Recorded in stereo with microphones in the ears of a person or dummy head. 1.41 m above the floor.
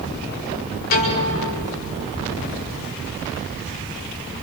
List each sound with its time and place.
0.9 s a piano: 50° left (ahead or behind), 5 m